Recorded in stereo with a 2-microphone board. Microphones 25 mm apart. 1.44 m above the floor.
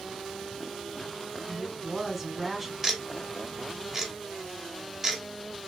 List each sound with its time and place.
1.5 s a woman speaking: 5° right (ahead or behind), 1.4 m
2.8 s ticking: 20° right (ahead or behind), 1.0 m